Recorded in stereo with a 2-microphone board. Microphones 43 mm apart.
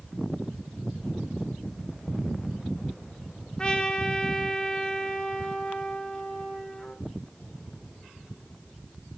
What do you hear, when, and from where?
3.6 s a trumpet: 20° left (ahead or behind), 1.3 m